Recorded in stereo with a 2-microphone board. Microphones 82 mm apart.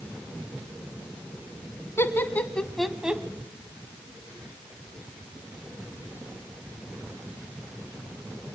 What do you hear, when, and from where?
2.0 s laughter: 30° left (ahead or behind), 1.7 m; by 3.2 s 15° right (ahead or behind), 1.4 m